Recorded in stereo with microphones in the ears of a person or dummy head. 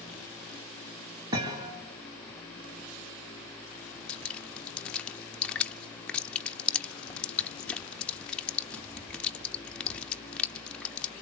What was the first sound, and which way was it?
A thud, 25° right (ahead or behind).